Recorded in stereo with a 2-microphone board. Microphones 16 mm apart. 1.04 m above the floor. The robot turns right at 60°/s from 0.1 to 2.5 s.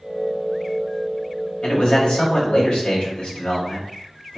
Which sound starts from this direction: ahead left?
A man speaking, at 1.6 s.